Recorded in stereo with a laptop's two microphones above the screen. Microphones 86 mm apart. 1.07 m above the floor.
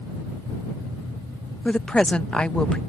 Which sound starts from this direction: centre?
A woman speaking, at 1.6 s.